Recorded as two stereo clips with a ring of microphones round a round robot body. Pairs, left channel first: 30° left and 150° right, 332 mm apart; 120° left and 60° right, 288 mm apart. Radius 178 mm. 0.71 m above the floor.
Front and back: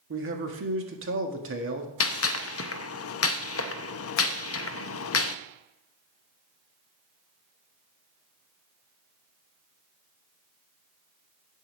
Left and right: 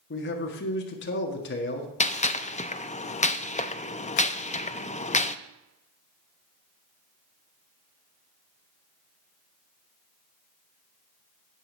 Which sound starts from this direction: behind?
A man speaking, at 0.1 s.